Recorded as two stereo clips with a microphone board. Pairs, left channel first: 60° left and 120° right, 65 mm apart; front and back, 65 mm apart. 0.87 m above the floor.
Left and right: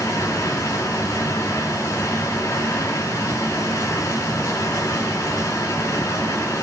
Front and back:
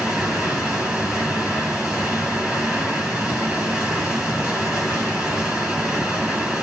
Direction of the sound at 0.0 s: 100° left.